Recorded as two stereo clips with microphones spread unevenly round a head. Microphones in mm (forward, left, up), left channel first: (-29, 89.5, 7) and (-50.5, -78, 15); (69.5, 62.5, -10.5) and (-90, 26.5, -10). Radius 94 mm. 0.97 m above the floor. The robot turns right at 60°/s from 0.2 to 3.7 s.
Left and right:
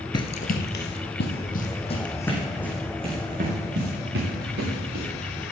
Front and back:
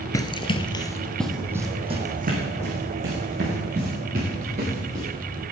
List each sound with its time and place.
0.1 s running footsteps: 55° left, 1.0 m; by 5.0 s 115° right, 8 m